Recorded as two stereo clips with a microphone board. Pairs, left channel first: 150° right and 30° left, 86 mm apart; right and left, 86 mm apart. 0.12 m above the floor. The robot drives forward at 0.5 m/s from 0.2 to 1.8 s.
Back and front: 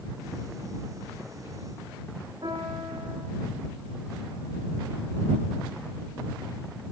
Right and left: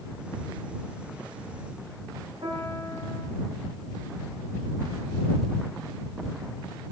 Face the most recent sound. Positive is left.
turn(degrees=60)